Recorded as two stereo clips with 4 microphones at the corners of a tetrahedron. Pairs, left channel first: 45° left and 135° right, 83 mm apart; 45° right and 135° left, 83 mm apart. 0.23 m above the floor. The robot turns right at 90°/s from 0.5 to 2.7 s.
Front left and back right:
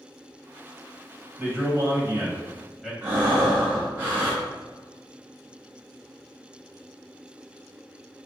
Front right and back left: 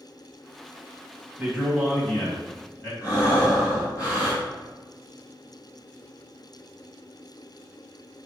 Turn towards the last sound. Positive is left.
turn(degrees=-75)